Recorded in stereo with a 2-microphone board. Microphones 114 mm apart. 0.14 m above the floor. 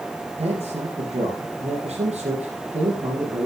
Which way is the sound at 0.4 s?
60° right (ahead or behind).